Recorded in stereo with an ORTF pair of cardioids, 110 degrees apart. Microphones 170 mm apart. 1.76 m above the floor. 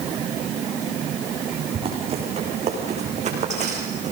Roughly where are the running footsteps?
Ahead right.